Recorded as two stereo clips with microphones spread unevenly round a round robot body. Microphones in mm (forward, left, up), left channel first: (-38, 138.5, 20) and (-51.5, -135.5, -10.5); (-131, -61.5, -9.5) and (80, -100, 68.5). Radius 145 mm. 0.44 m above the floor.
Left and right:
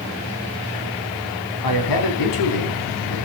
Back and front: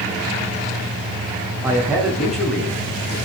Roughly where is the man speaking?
Left.